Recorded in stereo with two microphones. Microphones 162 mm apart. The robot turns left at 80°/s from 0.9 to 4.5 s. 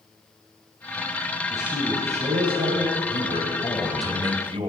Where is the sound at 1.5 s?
5° left, 3.5 m; by 3.0 s 115° right, 3.5 m.